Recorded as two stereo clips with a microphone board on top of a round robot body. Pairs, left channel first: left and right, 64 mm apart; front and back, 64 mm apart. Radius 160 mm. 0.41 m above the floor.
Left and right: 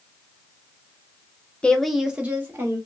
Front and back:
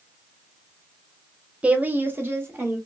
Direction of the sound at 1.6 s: 140° left.